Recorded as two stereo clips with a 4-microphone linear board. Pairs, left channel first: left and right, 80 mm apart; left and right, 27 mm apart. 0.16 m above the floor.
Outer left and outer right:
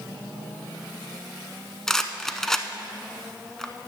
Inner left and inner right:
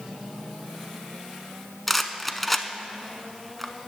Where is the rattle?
5° left (ahead or behind), 0.6 m.